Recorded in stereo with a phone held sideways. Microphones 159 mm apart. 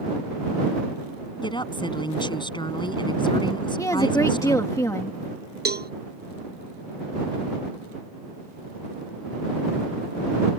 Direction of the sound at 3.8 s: 20° left (ahead or behind).